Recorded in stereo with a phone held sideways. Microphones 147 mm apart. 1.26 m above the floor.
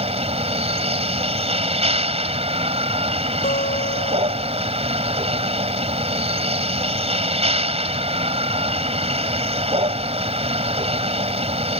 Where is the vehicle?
45° right (ahead or behind).